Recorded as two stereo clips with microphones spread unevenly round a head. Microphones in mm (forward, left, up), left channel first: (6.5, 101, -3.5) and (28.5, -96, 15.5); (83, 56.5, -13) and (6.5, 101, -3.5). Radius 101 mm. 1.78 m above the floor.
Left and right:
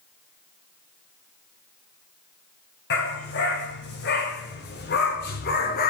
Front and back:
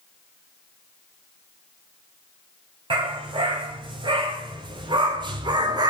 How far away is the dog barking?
About 5 m.